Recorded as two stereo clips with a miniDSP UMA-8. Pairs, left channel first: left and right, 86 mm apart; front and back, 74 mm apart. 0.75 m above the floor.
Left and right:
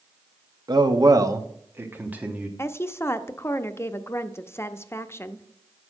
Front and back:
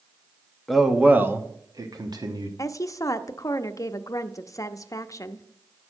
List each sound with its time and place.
0.7 s a man speaking: 85° right, 1.0 m; by 2.5 s 165° right, 1.6 m
2.6 s a woman speaking: 35° left, 0.7 m